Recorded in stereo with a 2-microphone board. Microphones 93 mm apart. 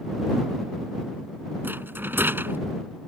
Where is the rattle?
20° right (ahead or behind).